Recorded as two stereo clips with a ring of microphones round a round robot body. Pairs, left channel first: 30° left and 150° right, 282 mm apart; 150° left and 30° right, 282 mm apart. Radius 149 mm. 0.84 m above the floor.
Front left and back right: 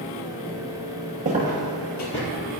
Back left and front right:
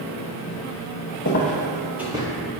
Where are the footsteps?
170° left, 0.9 m; by 2.3 s 35° left, 1.1 m.